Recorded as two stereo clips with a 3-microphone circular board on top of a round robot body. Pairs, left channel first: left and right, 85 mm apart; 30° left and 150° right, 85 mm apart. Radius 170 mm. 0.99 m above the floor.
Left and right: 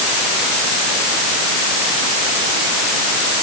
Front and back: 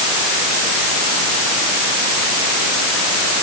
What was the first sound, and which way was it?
Only background noise.